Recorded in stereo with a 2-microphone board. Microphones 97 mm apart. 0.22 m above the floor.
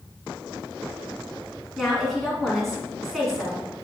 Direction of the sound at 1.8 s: Centre (ahead or behind).